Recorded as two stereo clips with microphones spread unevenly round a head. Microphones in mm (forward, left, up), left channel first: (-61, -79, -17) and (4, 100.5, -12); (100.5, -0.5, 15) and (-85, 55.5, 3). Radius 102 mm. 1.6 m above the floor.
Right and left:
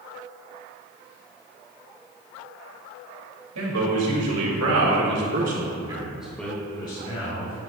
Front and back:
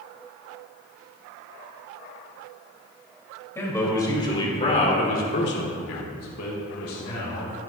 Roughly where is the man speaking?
Ahead left.